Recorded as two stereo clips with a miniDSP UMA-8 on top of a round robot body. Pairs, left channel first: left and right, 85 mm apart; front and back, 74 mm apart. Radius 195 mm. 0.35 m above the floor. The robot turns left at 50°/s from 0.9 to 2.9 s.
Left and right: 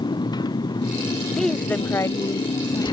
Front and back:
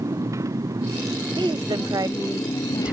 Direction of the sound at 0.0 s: 130° left.